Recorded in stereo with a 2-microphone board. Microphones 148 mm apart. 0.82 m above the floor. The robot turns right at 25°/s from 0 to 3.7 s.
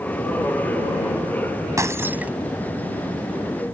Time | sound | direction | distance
1.8 | breaking glass | 20° right (ahead or behind) | ?